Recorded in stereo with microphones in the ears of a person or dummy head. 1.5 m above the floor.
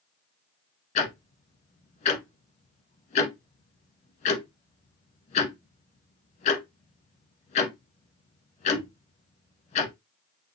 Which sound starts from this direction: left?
Ticking, at 0.9 s.